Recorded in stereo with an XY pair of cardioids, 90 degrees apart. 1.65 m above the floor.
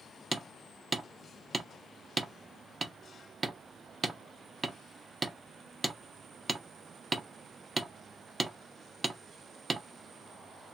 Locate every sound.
0.3 s hammering: 30° right, 0.7 m